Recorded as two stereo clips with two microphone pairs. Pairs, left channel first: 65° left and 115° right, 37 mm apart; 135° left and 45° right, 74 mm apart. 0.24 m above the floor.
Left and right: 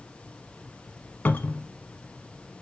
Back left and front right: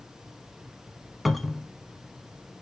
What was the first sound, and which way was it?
A cupboard door, 50° left.